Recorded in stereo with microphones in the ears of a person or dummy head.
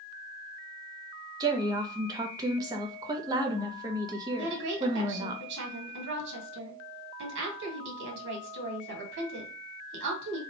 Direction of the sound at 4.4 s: 65° right (ahead or behind).